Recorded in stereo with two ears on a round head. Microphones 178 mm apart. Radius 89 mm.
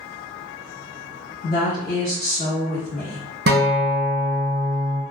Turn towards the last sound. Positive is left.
turn(degrees=-50)  # may be behind; listen again after turning